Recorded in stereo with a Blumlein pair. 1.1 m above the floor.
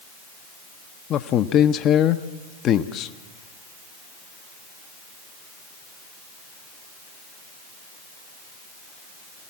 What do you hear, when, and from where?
1.1 s a man speaking: 30° left, 0.7 m